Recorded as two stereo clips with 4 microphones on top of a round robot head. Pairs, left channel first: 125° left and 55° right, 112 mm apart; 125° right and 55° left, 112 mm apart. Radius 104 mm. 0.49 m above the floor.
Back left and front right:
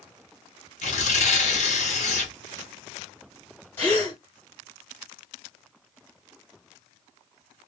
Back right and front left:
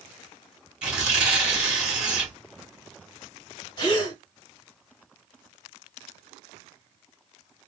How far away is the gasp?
About 1.8 m.